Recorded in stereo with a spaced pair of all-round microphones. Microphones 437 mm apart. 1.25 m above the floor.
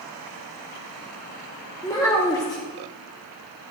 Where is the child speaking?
10° left (ahead or behind), 1.1 m.